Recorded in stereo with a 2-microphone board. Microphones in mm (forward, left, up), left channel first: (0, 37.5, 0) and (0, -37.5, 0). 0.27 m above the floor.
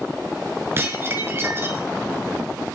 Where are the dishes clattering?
30° right (ahead or behind), 2.5 m.